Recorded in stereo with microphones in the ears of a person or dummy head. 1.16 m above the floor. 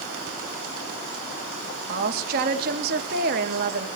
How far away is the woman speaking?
About 1.5 m.